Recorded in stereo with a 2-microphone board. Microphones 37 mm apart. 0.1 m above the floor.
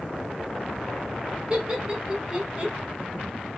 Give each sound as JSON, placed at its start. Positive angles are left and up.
{"t": 1.5, "sound": "laughter", "side_deg": -15, "distance_m": 2.5}